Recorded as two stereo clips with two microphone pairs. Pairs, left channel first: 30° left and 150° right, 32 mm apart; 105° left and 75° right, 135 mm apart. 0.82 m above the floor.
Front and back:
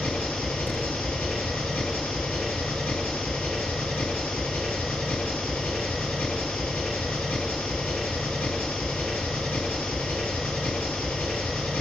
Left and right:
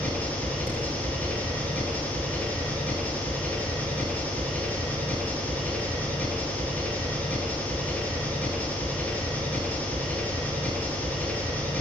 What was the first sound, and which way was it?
An engine running, 30° left.